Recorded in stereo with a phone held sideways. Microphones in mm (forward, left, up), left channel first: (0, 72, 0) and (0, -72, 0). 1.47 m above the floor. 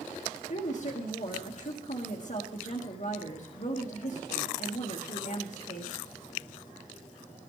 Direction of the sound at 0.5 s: 55° left (ahead or behind).